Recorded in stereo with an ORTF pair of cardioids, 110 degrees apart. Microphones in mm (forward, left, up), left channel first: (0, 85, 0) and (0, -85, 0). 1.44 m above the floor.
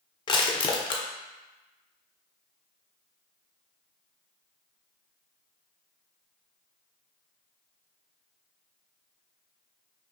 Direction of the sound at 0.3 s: 25° left.